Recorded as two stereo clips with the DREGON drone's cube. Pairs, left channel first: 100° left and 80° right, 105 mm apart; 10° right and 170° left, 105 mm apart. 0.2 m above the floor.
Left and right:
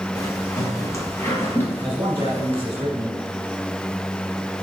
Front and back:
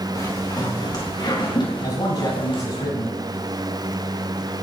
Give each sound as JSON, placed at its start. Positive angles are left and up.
{"t": 0.1, "sound": "footsteps", "azimuth_deg": 45, "distance_m": 3.5}
{"t": 1.8, "sound": "a man speaking", "azimuth_deg": -30, "distance_m": 1.4}